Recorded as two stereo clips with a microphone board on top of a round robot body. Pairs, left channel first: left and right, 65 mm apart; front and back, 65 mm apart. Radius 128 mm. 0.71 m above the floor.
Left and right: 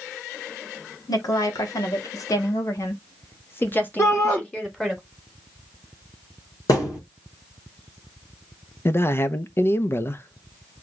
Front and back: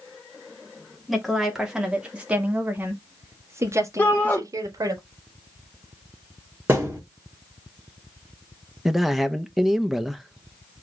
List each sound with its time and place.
1.1 s a woman speaking: 90° left, 2.0 m; by 5.0 s 170° left, 1.7 m
4.0 s a shout: 55° left, 1.6 m
6.7 s a thud: 115° left, 3 m
8.8 s a man speaking: 95° left, 0.8 m